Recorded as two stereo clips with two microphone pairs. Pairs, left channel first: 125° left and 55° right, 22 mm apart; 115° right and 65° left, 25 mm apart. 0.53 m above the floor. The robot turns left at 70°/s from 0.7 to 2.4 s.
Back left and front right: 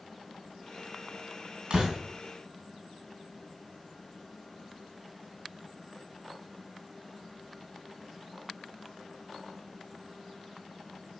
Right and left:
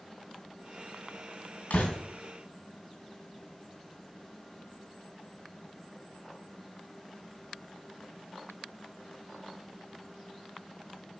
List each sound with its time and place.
1.7 s a door slam: 95° right, 3 m; by 2.0 s 115° right, 3 m